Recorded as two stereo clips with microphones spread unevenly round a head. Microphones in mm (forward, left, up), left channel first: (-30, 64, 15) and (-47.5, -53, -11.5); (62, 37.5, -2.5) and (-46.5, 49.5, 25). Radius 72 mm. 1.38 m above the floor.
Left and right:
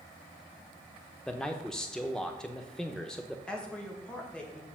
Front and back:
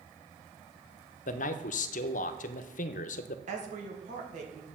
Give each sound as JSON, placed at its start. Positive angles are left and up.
{"t": 1.3, "sound": "a man speaking", "azimuth_deg": 0, "distance_m": 0.7}
{"t": 3.5, "sound": "a woman speaking", "azimuth_deg": 165, "distance_m": 2.0}